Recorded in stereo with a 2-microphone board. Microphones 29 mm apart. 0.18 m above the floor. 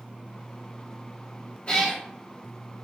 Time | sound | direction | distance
1.7 | a cat meowing | 35° left (ahead or behind) | 1.6 m